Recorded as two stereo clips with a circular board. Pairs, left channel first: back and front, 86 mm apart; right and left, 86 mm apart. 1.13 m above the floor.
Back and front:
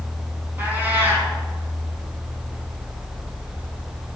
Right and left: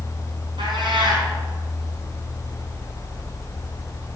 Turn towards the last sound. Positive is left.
turn(degrees=70)